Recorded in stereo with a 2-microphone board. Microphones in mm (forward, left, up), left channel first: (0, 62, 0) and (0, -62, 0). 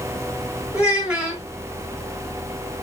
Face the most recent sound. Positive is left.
turn(degrees=-10)  # may be behind; listen again after turning